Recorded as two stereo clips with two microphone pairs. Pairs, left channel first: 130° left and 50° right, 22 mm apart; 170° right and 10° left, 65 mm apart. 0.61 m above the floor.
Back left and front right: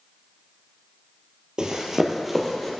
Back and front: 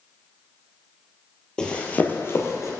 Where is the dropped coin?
No dropped coin in this recording.